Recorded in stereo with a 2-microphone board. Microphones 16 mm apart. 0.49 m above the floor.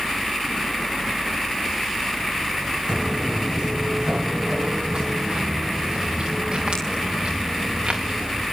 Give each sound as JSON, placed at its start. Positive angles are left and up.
{"t": 2.9, "sound": "footsteps", "side_deg": -50, "distance_m": 2.0}